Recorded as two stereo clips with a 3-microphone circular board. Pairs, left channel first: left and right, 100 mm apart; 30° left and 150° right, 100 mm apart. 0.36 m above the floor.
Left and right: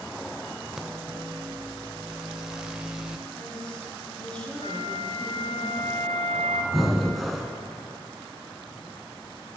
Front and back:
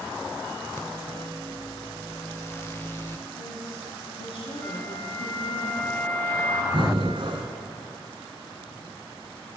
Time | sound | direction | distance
0.8 | a microwave | 10° right | 0.9 m
3.3 | a woman speaking | 10° left | 5 m
4.6 | a flute | 95° left | 2.0 m
6.7 | breathing | straight behind | 1.7 m